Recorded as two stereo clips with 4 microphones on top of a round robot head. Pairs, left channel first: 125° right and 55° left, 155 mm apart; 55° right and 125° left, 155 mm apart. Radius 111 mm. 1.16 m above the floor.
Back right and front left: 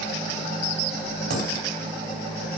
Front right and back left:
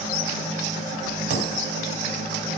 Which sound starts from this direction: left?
A dropped coin, at 1.3 s.